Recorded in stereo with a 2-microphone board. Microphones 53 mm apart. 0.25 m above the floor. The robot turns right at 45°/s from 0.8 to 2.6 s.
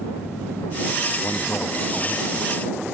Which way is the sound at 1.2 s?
60° left.